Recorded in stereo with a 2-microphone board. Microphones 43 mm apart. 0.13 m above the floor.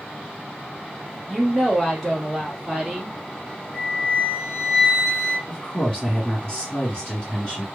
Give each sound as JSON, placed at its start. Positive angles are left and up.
{"t": 1.3, "sound": "a woman speaking", "side_deg": 0, "distance_m": 1.1}
{"t": 3.7, "sound": "a flute", "side_deg": -5, "distance_m": 1.4}
{"t": 5.5, "sound": "a woman speaking", "side_deg": 25, "distance_m": 1.5}